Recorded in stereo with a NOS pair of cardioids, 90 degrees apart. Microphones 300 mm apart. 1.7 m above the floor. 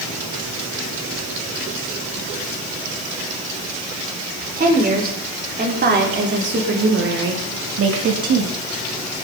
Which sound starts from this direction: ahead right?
A woman speaking, at 4.6 s.